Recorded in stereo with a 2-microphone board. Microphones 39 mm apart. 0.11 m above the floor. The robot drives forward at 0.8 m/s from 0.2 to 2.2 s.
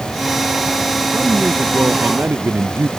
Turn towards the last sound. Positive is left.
turn(degrees=-75)  # may be behind; listen again after turning